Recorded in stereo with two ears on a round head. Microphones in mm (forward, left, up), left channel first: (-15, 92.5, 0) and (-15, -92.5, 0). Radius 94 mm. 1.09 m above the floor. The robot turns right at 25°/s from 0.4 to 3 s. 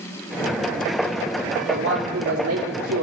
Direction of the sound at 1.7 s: 110° right.